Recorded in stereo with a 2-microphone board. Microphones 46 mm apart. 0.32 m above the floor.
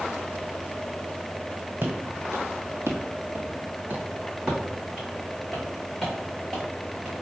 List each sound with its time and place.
1.8 s footsteps: 50° right (ahead or behind), 1.3 m; by 7.1 s centre (ahead or behind), 3 m